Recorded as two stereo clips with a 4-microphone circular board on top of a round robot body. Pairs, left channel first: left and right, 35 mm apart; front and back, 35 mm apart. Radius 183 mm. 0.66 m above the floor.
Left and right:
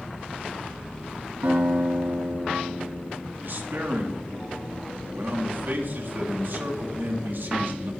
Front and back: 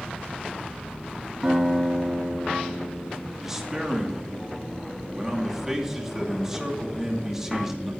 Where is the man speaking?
100° right, 2.5 m.